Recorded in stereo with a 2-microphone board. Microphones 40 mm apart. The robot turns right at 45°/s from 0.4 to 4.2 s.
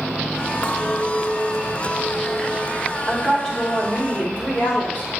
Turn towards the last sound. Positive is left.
turn(degrees=55)